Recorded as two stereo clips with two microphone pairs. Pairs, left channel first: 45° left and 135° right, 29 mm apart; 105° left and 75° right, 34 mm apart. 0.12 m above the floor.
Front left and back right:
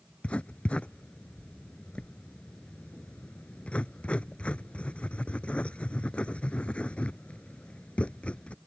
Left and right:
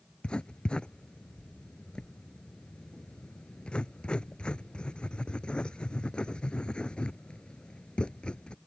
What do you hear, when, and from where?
0.2 s writing: 55° left